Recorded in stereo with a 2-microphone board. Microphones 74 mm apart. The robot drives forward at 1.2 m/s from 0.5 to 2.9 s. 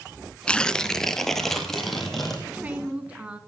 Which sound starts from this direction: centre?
Tearing paper, at 0.5 s.